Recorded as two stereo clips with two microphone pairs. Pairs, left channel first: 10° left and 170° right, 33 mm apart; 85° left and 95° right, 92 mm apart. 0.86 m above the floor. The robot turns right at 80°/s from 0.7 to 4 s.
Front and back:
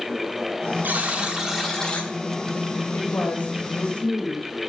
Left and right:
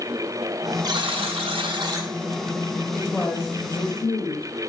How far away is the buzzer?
About 1.3 m.